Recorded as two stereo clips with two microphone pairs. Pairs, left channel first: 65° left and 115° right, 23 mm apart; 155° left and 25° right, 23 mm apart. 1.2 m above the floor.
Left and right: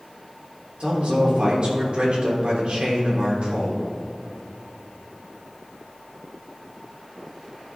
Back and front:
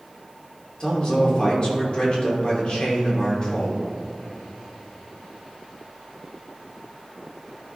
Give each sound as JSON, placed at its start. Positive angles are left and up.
{"t": 0.8, "sound": "a man speaking", "azimuth_deg": -155, "distance_m": 3.0}